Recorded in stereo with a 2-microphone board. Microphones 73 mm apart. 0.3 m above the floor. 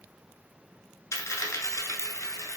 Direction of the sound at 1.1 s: 45° left (ahead or behind).